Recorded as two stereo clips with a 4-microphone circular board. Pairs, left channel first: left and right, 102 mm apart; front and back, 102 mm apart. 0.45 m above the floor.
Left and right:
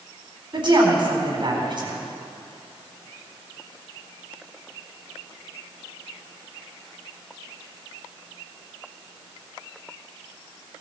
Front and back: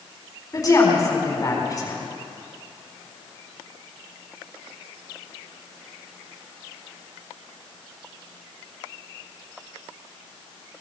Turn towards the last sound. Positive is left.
turn(degrees=-55)